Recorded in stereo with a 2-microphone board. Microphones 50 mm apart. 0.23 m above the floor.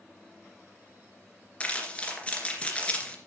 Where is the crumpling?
25° left (ahead or behind), 2.5 m.